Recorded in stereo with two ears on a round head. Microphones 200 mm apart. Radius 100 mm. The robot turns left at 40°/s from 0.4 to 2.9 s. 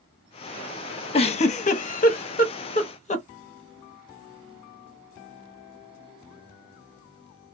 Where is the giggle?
25° left (ahead or behind), 0.7 m; by 3.2 s 30° left (ahead or behind), 0.7 m.